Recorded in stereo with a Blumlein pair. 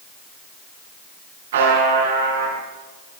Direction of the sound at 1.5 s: 55° right.